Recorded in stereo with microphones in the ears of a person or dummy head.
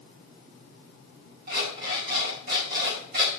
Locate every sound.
1.5 s an alarm clock: 60° right (ahead or behind), 5 m